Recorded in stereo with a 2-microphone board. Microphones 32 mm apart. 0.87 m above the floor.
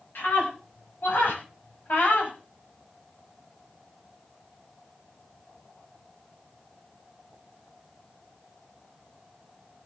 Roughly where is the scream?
Left.